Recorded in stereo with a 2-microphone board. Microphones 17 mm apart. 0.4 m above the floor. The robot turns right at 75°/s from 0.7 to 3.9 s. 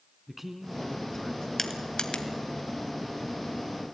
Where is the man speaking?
10° right, 3.5 m; by 1.5 s 50° left, 3.5 m.